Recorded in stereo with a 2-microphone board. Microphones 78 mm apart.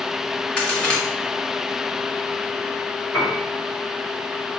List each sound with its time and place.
0.6 s a crack: 15° left (ahead or behind), 1.4 m
3.1 s a piano: 40° left (ahead or behind), 2 m